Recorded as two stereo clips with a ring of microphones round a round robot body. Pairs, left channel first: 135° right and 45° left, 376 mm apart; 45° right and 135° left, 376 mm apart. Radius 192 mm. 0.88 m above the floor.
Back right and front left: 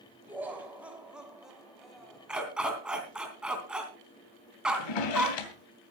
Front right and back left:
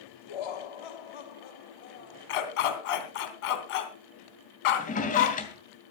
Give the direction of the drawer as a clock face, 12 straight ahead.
4 o'clock.